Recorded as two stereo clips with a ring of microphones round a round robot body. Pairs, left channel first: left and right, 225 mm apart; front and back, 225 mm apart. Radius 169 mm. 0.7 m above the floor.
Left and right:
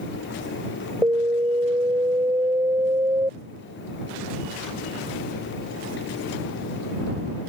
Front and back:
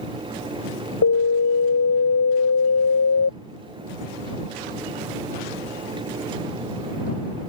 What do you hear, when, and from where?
1.0 s an alarm: 10° right